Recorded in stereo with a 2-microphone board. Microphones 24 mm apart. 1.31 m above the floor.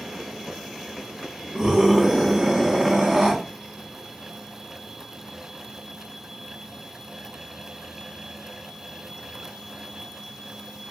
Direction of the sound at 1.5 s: 20° right (ahead or behind).